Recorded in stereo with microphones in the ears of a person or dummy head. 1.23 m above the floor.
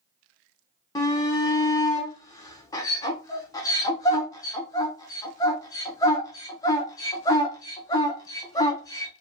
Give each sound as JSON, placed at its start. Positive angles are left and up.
{"t": 0.9, "sound": "a shout", "side_deg": 20, "distance_m": 0.5}